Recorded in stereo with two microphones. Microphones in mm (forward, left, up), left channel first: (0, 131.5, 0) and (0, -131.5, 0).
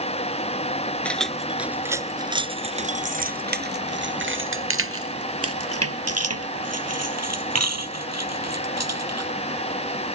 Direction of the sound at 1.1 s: 5° left (ahead or behind).